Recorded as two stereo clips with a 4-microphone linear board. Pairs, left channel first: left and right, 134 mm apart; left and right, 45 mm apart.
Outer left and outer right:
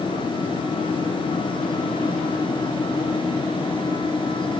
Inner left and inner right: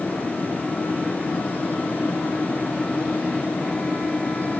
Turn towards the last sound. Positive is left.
No sound to turn to.